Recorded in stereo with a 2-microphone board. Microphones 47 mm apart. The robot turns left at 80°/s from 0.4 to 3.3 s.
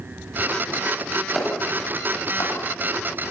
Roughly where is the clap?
Centre.